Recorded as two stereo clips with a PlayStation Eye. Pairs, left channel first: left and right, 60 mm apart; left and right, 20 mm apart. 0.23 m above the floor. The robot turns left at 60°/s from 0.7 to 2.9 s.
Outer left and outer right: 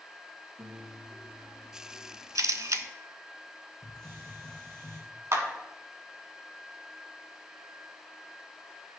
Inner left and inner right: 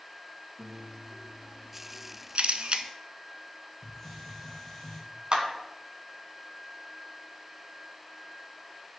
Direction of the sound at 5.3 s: 55° right (ahead or behind).